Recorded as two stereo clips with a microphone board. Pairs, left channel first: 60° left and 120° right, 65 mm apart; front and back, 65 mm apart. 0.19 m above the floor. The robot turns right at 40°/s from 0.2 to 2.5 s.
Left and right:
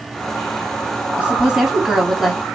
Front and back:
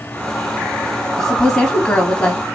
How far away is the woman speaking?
About 1.1 m.